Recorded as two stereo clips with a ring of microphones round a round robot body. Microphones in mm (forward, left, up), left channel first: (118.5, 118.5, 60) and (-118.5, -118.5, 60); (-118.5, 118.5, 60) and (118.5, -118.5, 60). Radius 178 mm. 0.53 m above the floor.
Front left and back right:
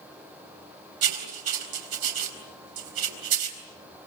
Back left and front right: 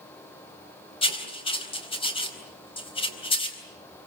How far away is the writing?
About 4 m.